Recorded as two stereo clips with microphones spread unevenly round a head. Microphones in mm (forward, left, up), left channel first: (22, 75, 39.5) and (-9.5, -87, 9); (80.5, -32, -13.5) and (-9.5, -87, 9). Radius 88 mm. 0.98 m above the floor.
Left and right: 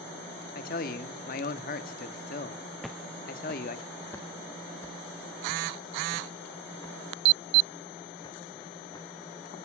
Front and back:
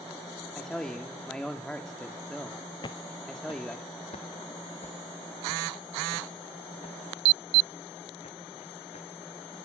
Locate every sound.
0.6 s a man speaking: 115° left, 1.9 m
2.8 s footsteps: straight ahead, 1.2 m; by 9.7 s 15° left, 5 m